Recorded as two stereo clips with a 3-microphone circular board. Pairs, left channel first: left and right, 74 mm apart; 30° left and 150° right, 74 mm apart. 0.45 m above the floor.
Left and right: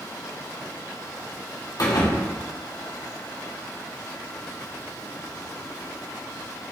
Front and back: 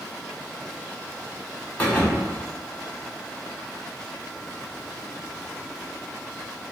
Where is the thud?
100° left, 1.4 m.